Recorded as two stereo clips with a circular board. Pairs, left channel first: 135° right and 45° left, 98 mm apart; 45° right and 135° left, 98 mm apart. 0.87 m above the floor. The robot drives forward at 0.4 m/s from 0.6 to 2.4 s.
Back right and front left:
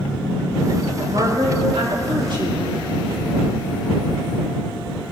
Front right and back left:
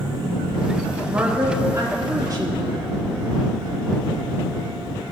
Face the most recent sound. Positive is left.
turn(degrees=85)